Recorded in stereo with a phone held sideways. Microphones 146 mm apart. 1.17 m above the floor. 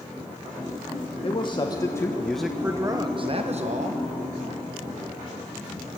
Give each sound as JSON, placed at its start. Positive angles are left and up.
{"t": 1.2, "sound": "a man speaking", "side_deg": 40, "distance_m": 1.3}